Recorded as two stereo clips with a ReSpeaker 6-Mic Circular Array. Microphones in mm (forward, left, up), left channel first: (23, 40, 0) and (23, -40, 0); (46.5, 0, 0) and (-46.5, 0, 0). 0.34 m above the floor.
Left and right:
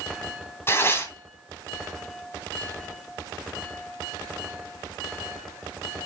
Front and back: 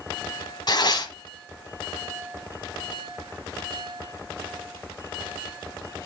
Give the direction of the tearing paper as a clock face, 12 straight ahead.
11 o'clock.